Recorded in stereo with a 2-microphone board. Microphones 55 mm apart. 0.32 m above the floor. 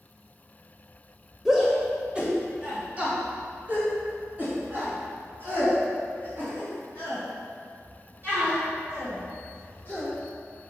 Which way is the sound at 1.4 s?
5° right (ahead or behind).